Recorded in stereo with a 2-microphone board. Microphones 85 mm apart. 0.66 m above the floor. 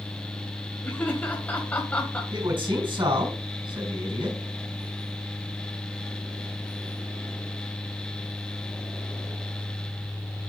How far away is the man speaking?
About 4 m.